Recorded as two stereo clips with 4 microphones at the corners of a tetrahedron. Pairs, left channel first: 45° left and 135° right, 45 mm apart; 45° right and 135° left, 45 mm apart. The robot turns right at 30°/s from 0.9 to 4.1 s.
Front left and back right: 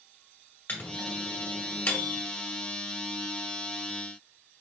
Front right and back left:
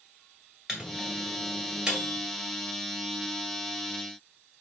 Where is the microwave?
40° left, 1.3 m; by 2.2 s 80° left, 1.3 m.